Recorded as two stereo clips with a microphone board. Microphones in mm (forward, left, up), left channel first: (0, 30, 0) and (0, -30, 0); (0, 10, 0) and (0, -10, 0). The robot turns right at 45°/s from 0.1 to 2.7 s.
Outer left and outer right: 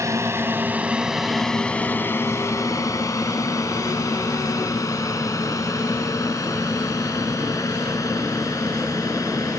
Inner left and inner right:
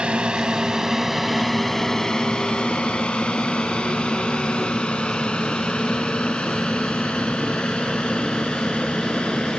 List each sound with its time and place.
0.0 s a drone: 55° right (ahead or behind); by 9.6 s 65° left (ahead or behind)